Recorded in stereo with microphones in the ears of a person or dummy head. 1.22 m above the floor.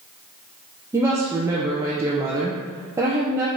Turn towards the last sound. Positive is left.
turn(degrees=-20)  # may be behind; listen again after turning